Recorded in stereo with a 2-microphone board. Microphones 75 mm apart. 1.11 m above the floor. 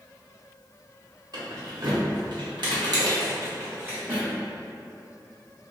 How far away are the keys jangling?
About 1.2 m.